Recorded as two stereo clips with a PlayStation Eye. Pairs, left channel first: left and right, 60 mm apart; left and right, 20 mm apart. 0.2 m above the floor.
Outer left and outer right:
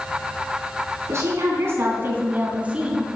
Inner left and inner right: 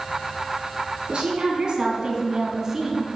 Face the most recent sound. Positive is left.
turn(degrees=-10)  # may be behind; listen again after turning